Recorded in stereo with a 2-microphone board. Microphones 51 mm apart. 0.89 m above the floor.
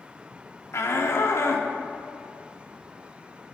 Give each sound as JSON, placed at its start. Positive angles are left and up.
{"t": 0.7, "sound": "a shout", "side_deg": 65, "distance_m": 1.4}